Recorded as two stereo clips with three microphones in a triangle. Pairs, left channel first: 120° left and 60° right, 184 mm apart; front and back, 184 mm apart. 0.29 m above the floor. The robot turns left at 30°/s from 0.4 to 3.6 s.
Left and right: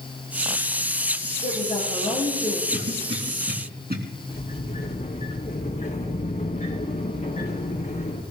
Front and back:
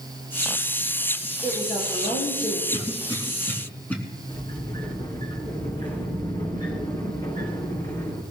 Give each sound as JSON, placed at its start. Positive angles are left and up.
{"t": 1.4, "sound": "a woman speaking", "azimuth_deg": 75, "distance_m": 5.5}
{"t": 2.7, "sound": "a cough", "azimuth_deg": -55, "distance_m": 3.5}
{"t": 4.3, "sound": "a sliding door", "azimuth_deg": 65, "distance_m": 3.0}